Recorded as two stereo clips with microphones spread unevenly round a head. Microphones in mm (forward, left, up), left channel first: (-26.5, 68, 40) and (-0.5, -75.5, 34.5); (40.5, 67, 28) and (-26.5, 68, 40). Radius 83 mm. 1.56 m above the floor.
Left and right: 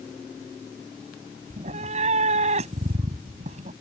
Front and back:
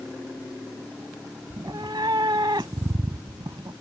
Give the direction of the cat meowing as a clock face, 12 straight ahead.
4 o'clock.